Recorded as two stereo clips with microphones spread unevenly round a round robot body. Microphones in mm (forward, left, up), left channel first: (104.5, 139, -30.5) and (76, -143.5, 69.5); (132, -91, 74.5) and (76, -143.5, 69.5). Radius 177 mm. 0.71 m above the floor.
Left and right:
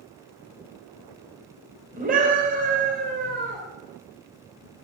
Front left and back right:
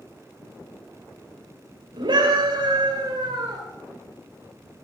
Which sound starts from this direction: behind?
A scream, at 1.9 s.